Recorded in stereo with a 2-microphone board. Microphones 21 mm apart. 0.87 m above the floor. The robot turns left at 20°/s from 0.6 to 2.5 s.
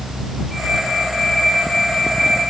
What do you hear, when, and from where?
Only background noise.